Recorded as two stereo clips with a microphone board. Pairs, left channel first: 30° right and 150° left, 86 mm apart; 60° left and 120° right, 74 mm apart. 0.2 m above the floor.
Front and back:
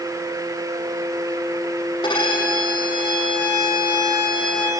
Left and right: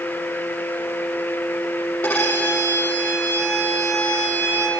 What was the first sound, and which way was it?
A violin, straight ahead.